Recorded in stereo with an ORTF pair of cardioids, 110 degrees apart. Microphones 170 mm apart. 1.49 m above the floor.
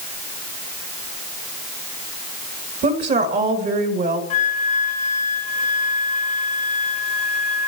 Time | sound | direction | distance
2.8 | a woman speaking | 60° right | 3 m
4.3 | a flute | 45° left | 1.3 m